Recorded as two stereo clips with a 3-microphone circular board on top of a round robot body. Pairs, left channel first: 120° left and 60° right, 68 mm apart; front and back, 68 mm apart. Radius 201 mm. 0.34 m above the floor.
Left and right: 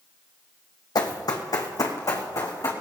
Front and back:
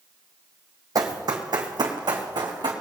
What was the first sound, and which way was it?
Running footsteps, 145° left.